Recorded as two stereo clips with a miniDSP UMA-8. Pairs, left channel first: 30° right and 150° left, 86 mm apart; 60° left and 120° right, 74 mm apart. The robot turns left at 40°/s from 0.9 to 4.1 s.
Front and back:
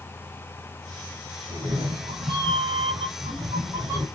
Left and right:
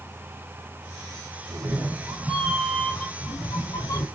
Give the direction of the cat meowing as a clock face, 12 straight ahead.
6 o'clock.